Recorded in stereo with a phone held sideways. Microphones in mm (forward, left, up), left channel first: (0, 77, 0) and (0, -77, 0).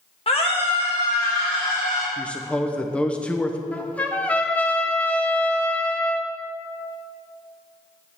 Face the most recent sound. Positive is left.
turn(degrees=10)  # may be behind; listen again after turning